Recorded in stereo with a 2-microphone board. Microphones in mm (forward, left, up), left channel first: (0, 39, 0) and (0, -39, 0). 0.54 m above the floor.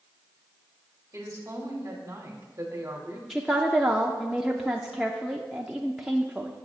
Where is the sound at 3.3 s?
10° right (ahead or behind), 0.7 m.